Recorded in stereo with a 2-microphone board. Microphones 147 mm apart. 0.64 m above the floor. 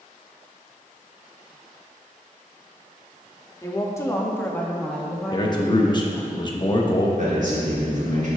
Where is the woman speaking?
20° left (ahead or behind), 0.9 m; by 6.3 s 10° right (ahead or behind), 1.1 m.